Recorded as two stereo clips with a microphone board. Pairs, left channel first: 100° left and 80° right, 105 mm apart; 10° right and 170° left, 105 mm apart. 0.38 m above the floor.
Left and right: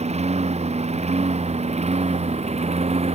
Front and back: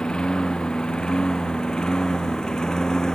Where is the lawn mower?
90° right; by 3.1 s 95° right.